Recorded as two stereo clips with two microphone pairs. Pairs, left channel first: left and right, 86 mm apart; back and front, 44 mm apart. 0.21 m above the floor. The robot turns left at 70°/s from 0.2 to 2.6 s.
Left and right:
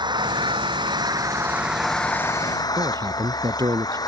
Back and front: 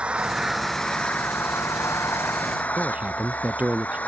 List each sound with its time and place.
0.0 s an engine running: 65° right; by 4.1 s 130° left
2.8 s a man speaking: 55° right